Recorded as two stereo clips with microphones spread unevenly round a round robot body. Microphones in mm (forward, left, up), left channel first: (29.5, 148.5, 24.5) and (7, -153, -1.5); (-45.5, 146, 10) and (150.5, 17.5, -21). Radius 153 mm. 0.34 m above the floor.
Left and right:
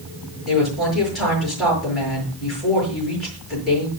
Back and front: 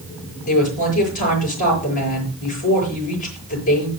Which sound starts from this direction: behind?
A woman speaking, at 0.5 s.